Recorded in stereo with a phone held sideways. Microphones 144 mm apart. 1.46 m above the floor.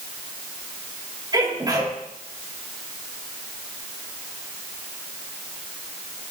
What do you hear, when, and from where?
1.3 s a sneeze: 30° right (ahead or behind), 4 m